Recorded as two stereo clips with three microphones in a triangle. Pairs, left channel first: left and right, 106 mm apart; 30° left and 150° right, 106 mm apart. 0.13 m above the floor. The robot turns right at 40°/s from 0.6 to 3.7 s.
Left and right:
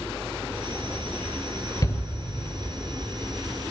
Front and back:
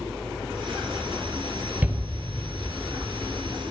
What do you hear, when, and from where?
1.8 s a shout: 140° left, 2 m; by 2.0 s 145° left, 2 m